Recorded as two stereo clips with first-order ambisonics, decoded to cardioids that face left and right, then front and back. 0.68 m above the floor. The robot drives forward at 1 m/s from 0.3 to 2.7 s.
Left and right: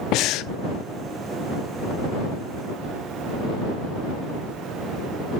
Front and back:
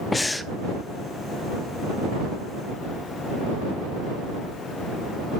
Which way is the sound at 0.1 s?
80° left.